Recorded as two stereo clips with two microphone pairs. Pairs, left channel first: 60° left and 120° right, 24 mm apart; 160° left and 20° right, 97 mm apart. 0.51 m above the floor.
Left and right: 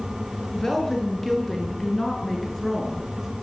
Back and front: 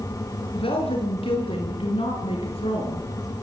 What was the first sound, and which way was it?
A woman speaking, 140° left.